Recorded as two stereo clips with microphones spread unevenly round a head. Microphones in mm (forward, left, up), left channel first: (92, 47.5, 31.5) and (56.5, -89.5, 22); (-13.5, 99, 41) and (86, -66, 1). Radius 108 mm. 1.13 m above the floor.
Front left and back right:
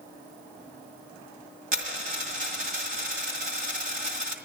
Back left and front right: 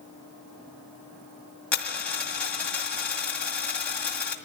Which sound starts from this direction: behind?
A dropped coin, at 1.7 s.